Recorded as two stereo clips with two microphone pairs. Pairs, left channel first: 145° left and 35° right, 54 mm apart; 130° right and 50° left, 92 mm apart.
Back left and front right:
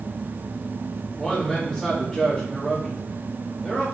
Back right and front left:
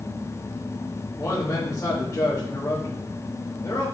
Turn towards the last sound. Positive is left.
turn(degrees=-140)